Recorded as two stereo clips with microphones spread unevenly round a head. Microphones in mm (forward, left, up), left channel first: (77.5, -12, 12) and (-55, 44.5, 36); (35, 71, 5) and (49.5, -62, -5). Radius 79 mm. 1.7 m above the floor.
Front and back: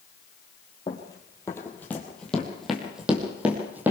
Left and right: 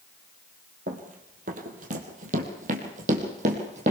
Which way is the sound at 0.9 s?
90° right.